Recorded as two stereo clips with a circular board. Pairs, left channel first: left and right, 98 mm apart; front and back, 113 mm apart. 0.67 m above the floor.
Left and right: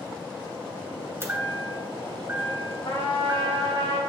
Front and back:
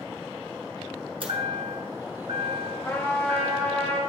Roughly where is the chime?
Behind right.